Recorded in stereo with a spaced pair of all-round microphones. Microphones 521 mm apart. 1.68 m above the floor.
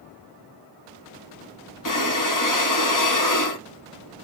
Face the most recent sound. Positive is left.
turn(degrees=35)  # may be behind; listen again after turning